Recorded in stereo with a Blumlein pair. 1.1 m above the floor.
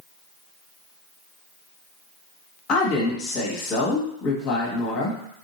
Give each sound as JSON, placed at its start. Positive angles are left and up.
{"t": 2.7, "sound": "a woman speaking", "azimuth_deg": 35, "distance_m": 1.7}